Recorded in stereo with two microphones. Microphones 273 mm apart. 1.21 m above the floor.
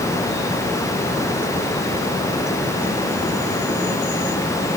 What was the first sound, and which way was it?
Only background noise.